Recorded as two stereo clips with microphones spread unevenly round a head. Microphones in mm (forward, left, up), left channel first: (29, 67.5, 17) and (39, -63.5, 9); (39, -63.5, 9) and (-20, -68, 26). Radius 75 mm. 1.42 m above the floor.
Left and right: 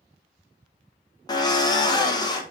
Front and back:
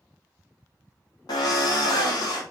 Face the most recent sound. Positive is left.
turn(degrees=35)